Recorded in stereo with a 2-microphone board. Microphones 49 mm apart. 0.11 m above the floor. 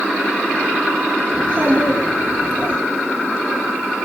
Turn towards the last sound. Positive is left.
turn(degrees=-40)  # may be behind; listen again after turning